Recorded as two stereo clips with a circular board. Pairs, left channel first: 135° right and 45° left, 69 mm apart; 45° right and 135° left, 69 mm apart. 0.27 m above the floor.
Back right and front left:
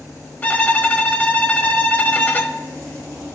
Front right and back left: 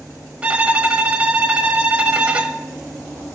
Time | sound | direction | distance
0.4 | a violin | 170° right | 0.8 m